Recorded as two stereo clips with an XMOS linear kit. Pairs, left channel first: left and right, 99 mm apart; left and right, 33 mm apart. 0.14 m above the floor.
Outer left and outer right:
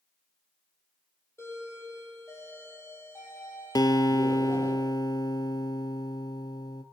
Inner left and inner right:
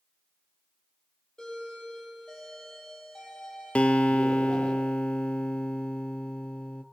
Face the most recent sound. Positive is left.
turn(degrees=40)  # may be behind; listen again after turning